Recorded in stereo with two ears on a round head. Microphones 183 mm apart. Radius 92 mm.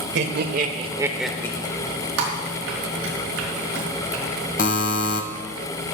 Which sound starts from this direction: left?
A buzzer, at 4.6 s.